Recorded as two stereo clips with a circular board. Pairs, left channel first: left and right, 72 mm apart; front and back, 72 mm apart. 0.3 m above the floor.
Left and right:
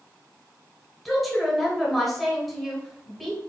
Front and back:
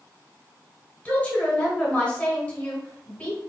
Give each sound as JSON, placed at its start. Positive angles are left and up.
{"t": 1.1, "sound": "a woman speaking", "azimuth_deg": 5, "distance_m": 1.3}